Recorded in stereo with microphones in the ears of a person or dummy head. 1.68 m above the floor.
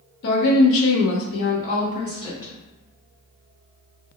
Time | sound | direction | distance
0.2 | a woman speaking | 55° left (ahead or behind) | 0.7 m